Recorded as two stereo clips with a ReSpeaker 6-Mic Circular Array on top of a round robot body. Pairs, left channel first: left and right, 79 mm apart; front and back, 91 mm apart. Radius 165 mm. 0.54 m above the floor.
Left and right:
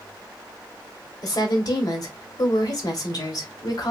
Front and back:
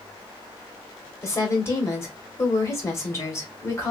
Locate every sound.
1.2 s a woman speaking: 60° left, 1.7 m